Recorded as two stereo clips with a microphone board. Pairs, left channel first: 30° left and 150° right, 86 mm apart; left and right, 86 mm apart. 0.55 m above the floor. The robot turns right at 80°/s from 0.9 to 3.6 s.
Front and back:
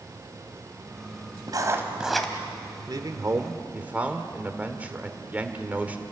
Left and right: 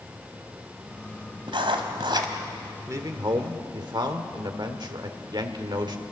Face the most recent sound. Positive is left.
turn(degrees=-80)